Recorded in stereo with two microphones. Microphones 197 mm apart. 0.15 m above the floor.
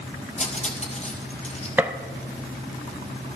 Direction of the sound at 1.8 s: 10° right (ahead or behind).